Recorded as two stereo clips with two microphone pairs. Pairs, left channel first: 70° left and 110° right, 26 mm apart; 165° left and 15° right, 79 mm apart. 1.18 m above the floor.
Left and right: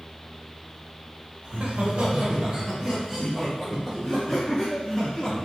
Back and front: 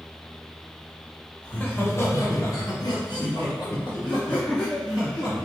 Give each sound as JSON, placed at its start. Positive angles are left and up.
{"t": 1.4, "sound": "laughter", "azimuth_deg": -125, "distance_m": 1.1}